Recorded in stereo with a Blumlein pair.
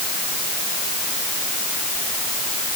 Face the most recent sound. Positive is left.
No sound to turn to.